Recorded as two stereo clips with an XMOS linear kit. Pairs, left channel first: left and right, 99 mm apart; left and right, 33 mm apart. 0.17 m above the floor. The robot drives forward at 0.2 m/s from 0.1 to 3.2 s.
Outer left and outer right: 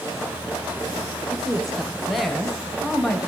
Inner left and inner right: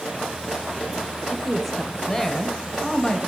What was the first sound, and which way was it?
A woman speaking, centre (ahead or behind).